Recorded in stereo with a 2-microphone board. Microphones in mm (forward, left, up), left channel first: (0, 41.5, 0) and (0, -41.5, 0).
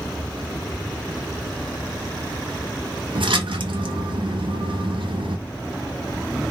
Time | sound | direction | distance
3.1 | a splash | 85° right | 0.5 m